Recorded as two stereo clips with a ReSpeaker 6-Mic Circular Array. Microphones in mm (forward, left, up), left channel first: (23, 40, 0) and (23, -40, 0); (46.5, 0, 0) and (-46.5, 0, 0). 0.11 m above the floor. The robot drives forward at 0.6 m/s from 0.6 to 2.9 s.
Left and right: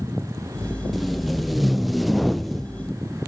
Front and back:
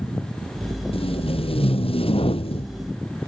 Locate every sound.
0.9 s tape being pulled: straight ahead